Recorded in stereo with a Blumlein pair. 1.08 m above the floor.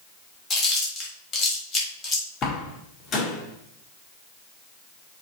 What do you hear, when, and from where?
0.5 s chewing: 25° left, 3.5 m
2.4 s a door slam: 30° left, 1.7 m